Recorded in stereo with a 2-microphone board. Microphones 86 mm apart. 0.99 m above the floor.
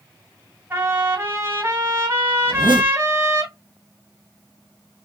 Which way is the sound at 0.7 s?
30° right (ahead or behind).